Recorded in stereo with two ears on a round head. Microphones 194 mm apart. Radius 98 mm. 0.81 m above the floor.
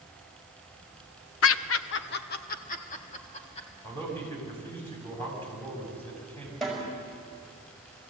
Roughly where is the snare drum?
Centre.